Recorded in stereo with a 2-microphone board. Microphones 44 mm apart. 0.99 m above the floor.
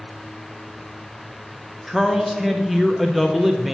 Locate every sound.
1.9 s a man speaking: 5° right (ahead or behind), 0.5 m